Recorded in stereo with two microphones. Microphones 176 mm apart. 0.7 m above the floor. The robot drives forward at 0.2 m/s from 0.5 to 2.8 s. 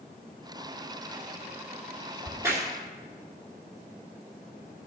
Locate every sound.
2.2 s a crack: 20° right (ahead or behind), 2 m; by 2.7 s 15° right (ahead or behind), 2 m